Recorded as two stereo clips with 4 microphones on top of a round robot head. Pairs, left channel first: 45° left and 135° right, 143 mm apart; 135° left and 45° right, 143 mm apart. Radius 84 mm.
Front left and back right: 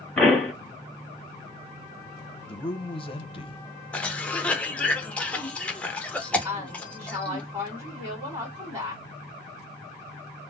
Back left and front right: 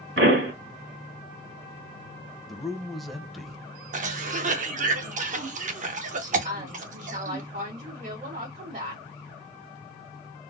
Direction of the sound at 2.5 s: 45° left.